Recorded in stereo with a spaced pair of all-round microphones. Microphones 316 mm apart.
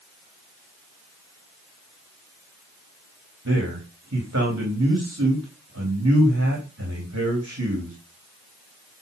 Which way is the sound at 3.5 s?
50° right (ahead or behind).